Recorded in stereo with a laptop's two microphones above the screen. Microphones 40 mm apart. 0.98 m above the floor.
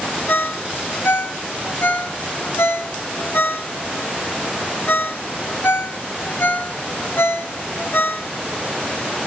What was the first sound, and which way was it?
A ringtone, 70° left (ahead or behind).